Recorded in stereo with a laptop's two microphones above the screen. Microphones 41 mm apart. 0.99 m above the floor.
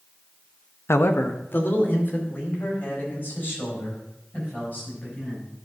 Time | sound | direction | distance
0.9 | a man speaking | 75° left (ahead or behind) | 0.6 m